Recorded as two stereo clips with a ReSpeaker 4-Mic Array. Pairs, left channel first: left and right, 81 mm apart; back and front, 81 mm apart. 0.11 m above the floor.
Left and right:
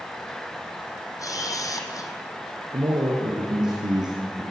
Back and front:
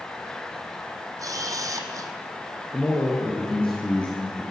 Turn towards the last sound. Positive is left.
turn(degrees=-105)